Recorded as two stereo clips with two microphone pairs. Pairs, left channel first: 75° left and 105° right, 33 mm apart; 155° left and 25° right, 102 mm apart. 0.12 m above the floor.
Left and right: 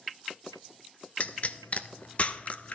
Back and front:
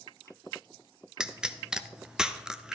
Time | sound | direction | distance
1.2 | a pop | 55° left | 0.6 m